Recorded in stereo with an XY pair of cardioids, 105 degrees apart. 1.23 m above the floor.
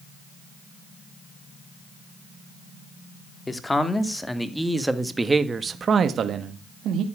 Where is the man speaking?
20° left, 3 m; by 7.0 s 75° right, 2 m.